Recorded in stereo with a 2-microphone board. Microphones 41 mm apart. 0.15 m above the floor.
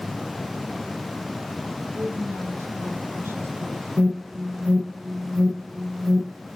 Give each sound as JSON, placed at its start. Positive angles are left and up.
{"t": 1.9, "sound": "a woman speaking", "side_deg": -75, "distance_m": 7.0}
{"t": 4.0, "sound": "an alarm", "side_deg": -60, "distance_m": 7.0}